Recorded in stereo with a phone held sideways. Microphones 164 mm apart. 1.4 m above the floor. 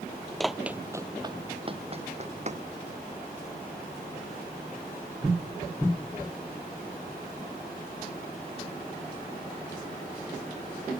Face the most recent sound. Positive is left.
turn(degrees=-45)  # may be behind; listen again after turning